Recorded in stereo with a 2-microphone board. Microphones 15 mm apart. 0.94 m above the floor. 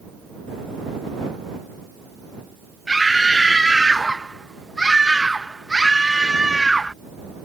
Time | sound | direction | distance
2.9 | a scream | 20° right (ahead or behind) | ?